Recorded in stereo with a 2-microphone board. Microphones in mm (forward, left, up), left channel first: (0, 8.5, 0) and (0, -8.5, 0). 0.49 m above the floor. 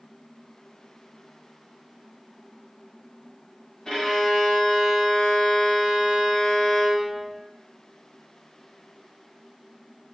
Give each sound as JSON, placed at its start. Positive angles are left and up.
{"t": 3.9, "sound": "a violin", "side_deg": 35, "distance_m": 0.9}